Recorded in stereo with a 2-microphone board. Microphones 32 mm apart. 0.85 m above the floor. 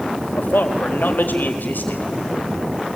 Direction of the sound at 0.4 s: 75° left (ahead or behind).